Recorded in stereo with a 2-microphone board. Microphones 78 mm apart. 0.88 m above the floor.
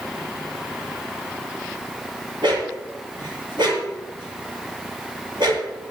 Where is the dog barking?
75° right (ahead or behind), 7 m.